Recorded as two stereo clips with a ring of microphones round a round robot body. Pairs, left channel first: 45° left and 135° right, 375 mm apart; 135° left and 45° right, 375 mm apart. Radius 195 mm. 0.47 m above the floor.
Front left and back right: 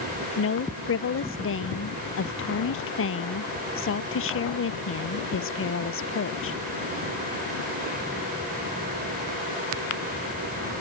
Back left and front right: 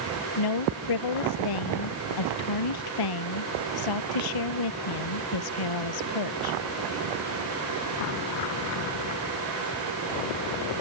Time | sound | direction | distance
0.4 | a woman speaking | 105° left | ?